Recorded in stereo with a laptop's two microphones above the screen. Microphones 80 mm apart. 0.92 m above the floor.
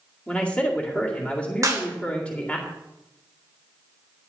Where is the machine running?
I don't hear a machine running.